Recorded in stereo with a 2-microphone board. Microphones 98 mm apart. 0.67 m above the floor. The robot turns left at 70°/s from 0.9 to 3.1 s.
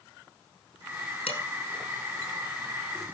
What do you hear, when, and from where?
1.3 s dishes clattering: 75° left (ahead or behind), 4.5 m; by 1.4 s 65° left (ahead or behind), 4.5 m